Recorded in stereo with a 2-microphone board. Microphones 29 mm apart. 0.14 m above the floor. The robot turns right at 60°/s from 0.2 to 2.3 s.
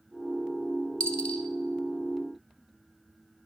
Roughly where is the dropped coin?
Left.